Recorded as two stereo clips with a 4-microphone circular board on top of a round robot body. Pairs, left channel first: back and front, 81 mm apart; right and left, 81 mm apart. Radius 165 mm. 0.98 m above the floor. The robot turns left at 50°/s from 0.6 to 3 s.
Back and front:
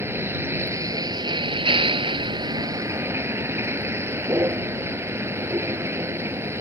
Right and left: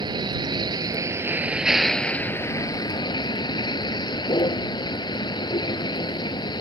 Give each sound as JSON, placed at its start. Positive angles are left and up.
{"t": 0.0, "sound": "a vehicle", "azimuth_deg": 60}